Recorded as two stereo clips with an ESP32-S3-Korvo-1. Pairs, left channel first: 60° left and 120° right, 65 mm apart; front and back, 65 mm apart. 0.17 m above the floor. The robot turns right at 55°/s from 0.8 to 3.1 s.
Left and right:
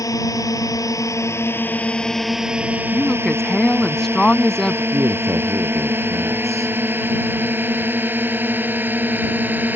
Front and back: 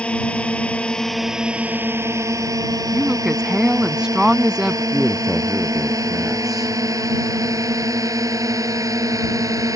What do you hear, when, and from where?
0.0 s a drone: 70° left; by 9.8 s 175° right
2.9 s a woman speaking: 115° left; by 4.8 s 125° left
4.9 s a man speaking: 95° right